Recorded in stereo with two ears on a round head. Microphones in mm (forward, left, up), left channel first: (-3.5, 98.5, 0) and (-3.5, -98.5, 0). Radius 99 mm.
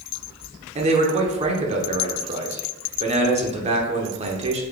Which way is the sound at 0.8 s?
30° right (ahead or behind).